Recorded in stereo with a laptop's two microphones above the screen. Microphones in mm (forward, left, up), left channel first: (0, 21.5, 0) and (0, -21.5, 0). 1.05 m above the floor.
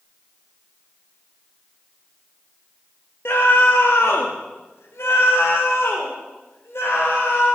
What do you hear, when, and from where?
3.2 s a scream: 60° left (ahead or behind), 1.1 m; by 7.5 s 75° left (ahead or behind), 5 m